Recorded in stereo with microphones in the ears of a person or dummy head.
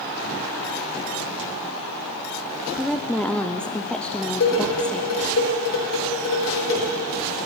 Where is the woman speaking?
Centre (ahead or behind), 0.6 m.